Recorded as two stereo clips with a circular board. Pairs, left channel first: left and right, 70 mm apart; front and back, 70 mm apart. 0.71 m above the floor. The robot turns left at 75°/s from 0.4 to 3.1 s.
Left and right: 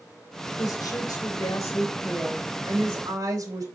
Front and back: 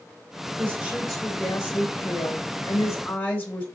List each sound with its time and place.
0.6 s a woman speaking: 130° left, 3 m; by 3.6 s 60° right, 3 m